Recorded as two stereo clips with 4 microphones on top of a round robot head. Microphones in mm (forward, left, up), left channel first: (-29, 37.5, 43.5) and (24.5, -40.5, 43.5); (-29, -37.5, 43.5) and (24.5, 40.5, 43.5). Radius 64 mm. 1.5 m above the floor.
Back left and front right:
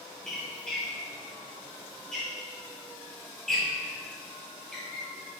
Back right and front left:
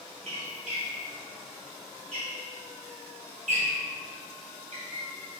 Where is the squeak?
40° left, 2.5 m.